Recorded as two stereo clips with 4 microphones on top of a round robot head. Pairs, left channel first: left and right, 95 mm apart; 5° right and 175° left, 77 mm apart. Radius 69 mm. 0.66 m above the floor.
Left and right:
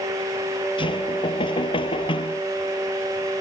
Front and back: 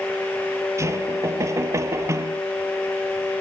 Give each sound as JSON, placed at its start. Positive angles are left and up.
{"t": 0.8, "sound": "knocking", "azimuth_deg": 125}